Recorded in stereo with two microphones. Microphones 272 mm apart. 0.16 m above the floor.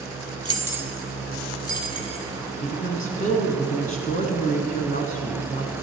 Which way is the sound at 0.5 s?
20° right (ahead or behind).